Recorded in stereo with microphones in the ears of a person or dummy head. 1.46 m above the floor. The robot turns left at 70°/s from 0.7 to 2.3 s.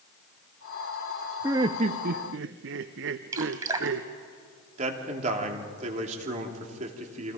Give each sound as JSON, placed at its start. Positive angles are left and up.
{"t": 1.4, "sound": "laughter", "azimuth_deg": -15, "distance_m": 0.8}
{"t": 3.3, "sound": "dripping", "side_deg": -20, "distance_m": 2.0}
{"t": 4.8, "sound": "a man speaking", "side_deg": -45, "distance_m": 3.0}